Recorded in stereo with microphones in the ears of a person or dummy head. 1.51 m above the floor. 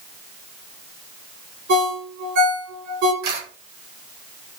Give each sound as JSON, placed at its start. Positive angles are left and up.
{"t": 1.7, "sound": "a ringtone", "side_deg": -55, "distance_m": 3.0}
{"t": 3.2, "sound": "a camera shutter", "side_deg": -85, "distance_m": 3.0}